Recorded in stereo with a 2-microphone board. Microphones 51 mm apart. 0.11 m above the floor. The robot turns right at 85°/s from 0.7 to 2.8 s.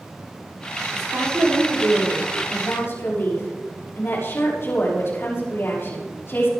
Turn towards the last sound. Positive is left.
turn(degrees=60)